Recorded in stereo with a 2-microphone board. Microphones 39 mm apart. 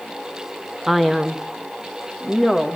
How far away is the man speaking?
About 0.7 m.